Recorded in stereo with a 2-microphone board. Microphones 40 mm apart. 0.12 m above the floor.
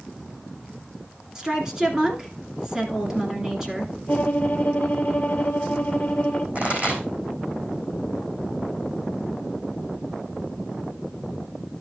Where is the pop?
45° right (ahead or behind), 3.5 m.